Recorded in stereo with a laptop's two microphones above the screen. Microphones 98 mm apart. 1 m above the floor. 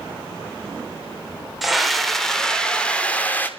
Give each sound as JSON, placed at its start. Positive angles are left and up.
{"t": 1.6, "sound": "a scream", "side_deg": 0, "distance_m": 3.5}